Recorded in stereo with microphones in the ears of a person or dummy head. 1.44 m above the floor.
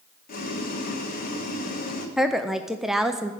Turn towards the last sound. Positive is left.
turn(degrees=0)  # may be behind; listen again after turning